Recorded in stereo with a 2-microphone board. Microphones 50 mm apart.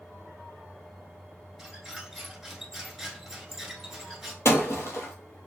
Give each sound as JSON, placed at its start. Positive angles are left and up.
{"t": 1.6, "sound": "a squeak", "side_deg": -5, "distance_m": 1.0}
{"t": 4.5, "sound": "breaking glass", "side_deg": 70, "distance_m": 0.9}